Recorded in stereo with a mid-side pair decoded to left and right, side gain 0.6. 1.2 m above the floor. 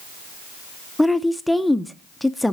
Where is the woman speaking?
5° left, 0.6 m.